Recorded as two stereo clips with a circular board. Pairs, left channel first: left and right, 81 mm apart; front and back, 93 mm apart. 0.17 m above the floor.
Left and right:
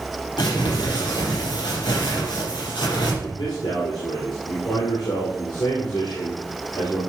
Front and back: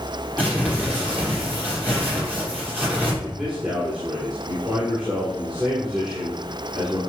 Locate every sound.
0.4 s crumpling: 110° left, 5 m
3.2 s a man speaking: 100° left, 4 m